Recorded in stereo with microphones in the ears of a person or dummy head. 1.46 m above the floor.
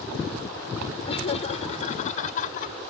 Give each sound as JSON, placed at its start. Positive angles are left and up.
{"t": 1.1, "sound": "laughter", "side_deg": 35}